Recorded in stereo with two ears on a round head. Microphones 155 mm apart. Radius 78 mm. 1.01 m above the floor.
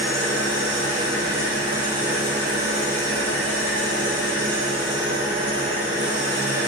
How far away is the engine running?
About 3.5 m.